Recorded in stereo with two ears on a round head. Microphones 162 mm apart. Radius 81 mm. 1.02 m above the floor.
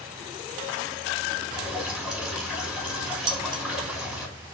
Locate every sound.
1.5 s dripping: 5° right (ahead or behind), 4 m
3.3 s dishes clattering: 25° right (ahead or behind), 0.7 m